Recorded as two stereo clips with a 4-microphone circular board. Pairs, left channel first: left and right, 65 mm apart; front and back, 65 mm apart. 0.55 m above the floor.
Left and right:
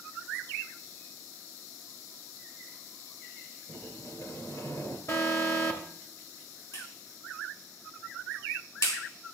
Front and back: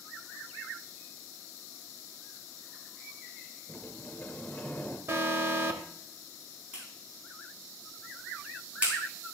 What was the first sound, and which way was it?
A sliding door, 65° left.